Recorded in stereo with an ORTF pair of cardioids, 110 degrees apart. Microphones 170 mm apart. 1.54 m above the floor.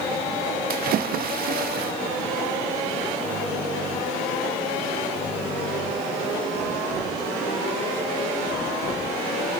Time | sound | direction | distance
0.7 | a splash | 65° right | 1.7 m